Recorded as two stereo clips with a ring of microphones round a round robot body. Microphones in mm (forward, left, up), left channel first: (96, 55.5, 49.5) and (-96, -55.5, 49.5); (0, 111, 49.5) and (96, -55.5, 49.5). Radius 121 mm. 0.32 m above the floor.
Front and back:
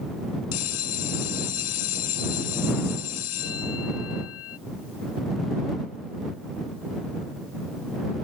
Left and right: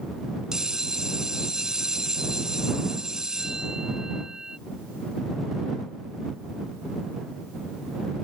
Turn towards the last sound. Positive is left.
turn(degrees=25)